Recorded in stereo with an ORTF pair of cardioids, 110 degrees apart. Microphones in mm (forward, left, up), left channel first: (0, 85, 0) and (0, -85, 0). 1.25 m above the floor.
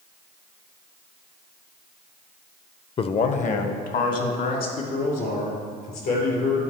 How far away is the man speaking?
About 0.5 m.